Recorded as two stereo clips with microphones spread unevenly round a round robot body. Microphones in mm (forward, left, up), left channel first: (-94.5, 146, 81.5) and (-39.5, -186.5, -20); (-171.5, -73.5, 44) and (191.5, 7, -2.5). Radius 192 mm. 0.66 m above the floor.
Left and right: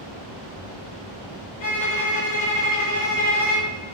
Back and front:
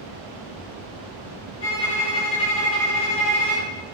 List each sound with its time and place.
1.6 s a violin: 135° left, 1.6 m